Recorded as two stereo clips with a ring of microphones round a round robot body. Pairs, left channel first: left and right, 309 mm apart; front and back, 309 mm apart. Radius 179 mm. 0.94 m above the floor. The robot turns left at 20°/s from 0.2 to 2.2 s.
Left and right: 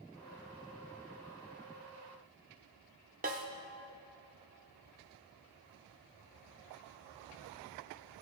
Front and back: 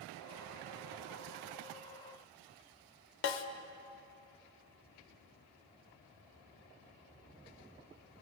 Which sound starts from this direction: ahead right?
A snare drum, at 3.2 s.